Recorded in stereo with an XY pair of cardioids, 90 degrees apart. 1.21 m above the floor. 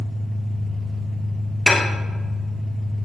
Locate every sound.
0.0 s an engine running: 30° right, 1.0 m
1.7 s dishes clattering: 30° left, 0.5 m